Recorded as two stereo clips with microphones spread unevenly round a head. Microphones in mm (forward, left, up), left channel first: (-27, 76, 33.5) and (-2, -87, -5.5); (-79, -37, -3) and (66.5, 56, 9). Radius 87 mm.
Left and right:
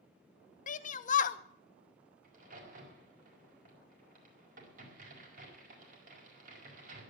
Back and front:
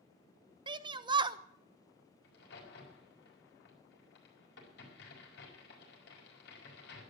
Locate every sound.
0.7 s a shout: 80° left, 0.8 m
2.2 s a crack: 115° right, 5 m